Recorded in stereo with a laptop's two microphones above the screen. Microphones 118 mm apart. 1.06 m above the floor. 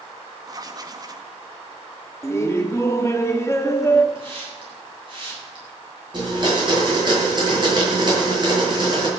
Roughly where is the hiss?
Right.